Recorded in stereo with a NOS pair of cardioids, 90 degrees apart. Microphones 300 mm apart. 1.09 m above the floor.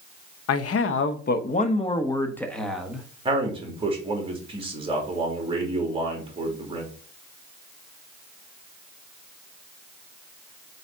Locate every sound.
0.5 s a man speaking: 60° left, 1.0 m; by 3.1 s 5° right, 1.6 m
3.2 s a man speaking: 20° right, 3 m